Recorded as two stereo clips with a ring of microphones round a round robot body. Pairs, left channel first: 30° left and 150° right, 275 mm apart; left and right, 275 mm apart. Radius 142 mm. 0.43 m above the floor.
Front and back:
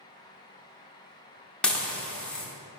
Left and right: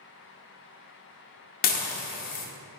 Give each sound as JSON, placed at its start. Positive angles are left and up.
{"t": 1.6, "sound": "dishes clattering", "azimuth_deg": 115, "distance_m": 0.6}